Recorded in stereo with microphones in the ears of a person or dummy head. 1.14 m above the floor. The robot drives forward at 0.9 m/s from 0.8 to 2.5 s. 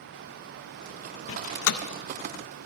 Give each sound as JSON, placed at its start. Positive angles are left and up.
{"t": 1.3, "sound": "a door slam", "side_deg": 70, "distance_m": 0.6}